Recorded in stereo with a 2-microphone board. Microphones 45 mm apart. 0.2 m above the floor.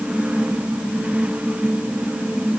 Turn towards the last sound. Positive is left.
No sound to turn to.